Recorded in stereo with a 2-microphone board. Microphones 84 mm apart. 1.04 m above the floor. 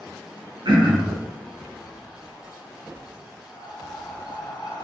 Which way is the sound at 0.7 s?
85° right.